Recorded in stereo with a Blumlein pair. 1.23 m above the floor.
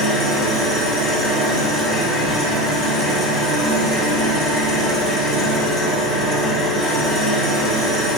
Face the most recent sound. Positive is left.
turn(degrees=5)